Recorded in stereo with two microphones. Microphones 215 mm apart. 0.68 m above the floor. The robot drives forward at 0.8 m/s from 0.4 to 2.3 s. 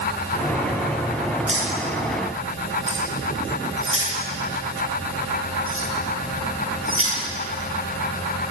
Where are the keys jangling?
70° right (ahead or behind), 10 m; by 7.1 s 75° right (ahead or behind), 10 m.